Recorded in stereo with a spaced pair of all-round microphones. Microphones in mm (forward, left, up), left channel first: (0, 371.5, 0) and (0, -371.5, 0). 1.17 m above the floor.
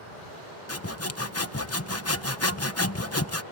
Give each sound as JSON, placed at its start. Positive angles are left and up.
{"t": 0.7, "sound": "sawing", "side_deg": 20}